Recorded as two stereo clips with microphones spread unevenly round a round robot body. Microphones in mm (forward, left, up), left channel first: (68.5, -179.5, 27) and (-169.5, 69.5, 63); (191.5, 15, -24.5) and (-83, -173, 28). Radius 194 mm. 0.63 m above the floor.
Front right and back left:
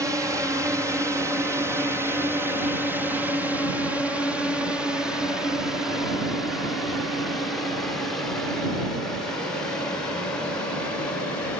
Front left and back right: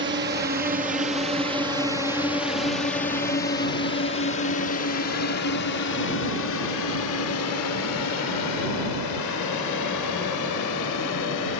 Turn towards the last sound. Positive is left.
turn(degrees=40)